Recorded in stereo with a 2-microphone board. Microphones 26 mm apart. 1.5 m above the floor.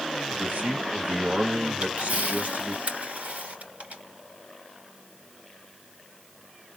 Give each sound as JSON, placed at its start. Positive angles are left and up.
{"t": 0.3, "sound": "a man speaking", "side_deg": -80, "distance_m": 1.8}
{"t": 1.8, "sound": "a camera shutter", "side_deg": -70, "distance_m": 3.5}